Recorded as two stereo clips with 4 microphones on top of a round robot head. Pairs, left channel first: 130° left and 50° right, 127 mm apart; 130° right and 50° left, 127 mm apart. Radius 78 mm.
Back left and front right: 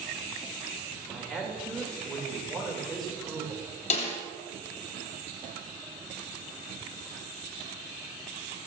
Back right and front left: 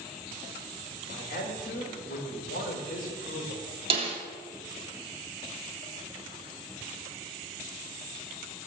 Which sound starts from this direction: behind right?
A man speaking, at 1.1 s.